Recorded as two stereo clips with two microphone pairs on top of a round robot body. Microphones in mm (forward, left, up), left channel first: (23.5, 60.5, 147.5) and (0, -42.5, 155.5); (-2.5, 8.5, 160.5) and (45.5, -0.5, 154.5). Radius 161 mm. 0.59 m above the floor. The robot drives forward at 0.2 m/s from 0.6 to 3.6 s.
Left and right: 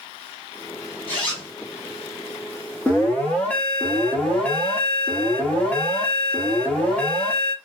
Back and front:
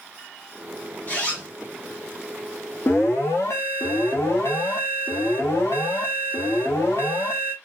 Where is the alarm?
145° left, 1.0 m; by 7.5 s 150° left, 1.1 m.